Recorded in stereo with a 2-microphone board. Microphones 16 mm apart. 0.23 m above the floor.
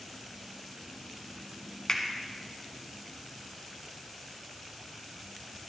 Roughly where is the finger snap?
Left.